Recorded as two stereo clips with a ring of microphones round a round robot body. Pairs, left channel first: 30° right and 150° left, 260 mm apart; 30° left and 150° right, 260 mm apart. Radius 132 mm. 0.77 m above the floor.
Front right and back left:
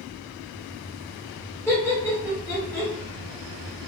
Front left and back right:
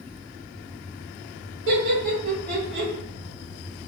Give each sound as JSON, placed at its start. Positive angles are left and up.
{"t": 1.7, "sound": "laughter", "azimuth_deg": -110, "distance_m": 1.8}